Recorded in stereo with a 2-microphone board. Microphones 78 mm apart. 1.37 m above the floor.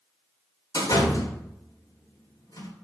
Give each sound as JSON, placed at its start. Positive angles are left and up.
{"t": 0.7, "sound": "a door slam", "side_deg": 55, "distance_m": 3.5}